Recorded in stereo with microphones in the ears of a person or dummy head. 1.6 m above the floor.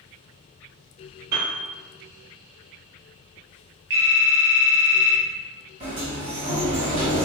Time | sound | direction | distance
1.3 | a piano | 15° right (ahead or behind) | 1.0 m
3.9 | a phone ringing | 15° right (ahead or behind) | 0.6 m
5.8 | a sliding door | 40° right (ahead or behind) | 1.9 m